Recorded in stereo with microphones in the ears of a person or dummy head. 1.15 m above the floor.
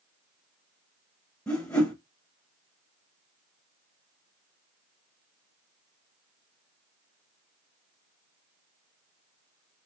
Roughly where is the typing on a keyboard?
I don't hear typing on a keyboard.